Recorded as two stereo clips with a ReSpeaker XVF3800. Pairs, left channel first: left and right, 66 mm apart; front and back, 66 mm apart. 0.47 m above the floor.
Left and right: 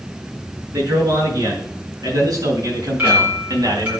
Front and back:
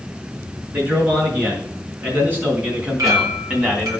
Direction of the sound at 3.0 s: 155° right.